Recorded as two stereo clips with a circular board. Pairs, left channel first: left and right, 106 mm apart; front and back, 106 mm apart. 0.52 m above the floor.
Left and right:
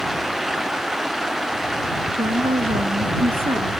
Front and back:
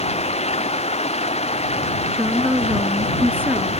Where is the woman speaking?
105° right.